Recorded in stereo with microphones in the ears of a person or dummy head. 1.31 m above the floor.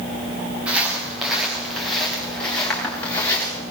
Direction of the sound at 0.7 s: Centre (ahead or behind).